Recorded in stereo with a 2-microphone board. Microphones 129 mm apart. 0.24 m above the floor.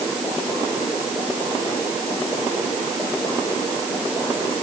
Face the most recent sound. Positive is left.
No sound to turn to.